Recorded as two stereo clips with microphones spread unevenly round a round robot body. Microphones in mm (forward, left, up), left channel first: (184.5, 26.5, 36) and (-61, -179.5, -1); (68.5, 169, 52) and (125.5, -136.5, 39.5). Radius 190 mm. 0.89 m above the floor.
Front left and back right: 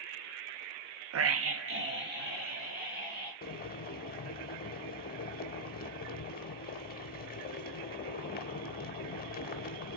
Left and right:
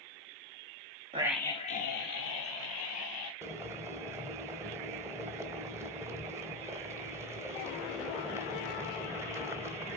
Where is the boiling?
Straight ahead, 0.8 m.